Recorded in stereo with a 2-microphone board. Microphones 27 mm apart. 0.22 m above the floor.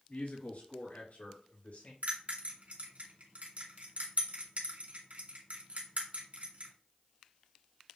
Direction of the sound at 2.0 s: 60° right (ahead or behind).